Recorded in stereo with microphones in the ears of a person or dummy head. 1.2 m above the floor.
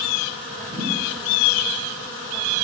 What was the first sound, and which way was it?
A thud, 50° right (ahead or behind).